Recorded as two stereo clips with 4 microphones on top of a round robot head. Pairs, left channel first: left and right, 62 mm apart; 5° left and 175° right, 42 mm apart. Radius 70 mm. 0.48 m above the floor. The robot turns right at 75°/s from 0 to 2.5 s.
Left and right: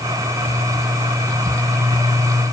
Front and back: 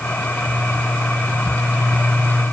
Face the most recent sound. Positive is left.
No sound to turn to.